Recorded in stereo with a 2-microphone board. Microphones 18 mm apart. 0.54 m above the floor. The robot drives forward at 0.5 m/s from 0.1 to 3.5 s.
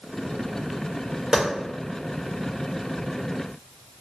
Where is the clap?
35° right (ahead or behind), 1.6 m; by 1.4 s 40° right (ahead or behind), 1.6 m.